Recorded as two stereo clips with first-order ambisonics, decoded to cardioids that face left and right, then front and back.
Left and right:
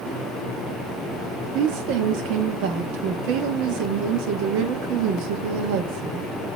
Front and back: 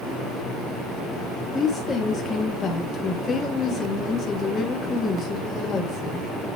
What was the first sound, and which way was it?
A woman speaking, 70° right.